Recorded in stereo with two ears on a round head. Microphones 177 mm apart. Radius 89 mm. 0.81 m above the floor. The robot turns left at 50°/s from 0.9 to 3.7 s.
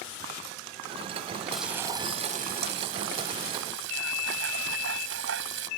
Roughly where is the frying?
Ahead.